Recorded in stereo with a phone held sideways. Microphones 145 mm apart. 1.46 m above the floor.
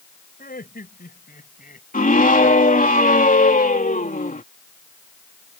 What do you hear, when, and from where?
0.4 s laughter: 75° left (ahead or behind); by 1.8 s 70° left (ahead or behind)
1.9 s a scream: 65° left (ahead or behind)